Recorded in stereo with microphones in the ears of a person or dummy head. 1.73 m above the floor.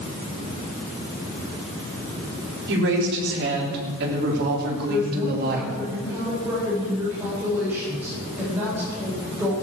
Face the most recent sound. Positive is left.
turn(degrees=-15)  # may be behind; listen again after turning